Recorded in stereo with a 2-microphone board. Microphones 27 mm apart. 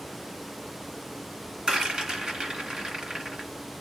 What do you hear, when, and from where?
1.7 s a rattle: 35° right (ahead or behind), 1.7 m